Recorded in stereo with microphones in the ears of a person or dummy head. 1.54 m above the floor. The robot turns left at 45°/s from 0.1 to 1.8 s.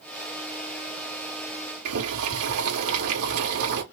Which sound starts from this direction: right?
Boiling, at 1.9 s.